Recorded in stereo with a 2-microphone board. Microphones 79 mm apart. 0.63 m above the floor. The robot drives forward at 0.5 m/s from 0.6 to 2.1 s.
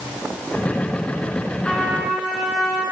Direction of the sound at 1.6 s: 10° left (ahead or behind).